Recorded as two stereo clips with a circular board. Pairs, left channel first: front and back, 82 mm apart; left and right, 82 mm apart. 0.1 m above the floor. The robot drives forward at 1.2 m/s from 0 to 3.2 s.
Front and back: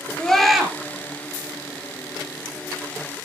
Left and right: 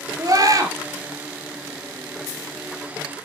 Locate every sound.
0.2 s a scream: 80° right, 2.5 m; by 0.7 s 100° right, 2.5 m